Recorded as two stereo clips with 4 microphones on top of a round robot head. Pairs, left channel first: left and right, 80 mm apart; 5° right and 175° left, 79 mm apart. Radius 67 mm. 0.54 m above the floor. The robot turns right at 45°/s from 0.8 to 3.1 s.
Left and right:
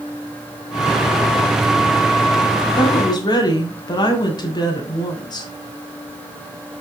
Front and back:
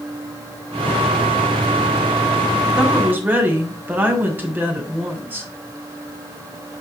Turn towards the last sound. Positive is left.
turn(degrees=115)